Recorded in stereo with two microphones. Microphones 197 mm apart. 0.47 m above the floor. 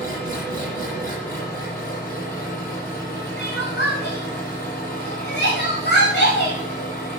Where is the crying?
60° left (ahead or behind), 6.5 m.